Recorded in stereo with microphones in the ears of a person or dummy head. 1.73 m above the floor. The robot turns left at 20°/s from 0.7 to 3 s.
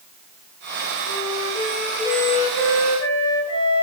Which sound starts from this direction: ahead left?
A flute, at 1.1 s.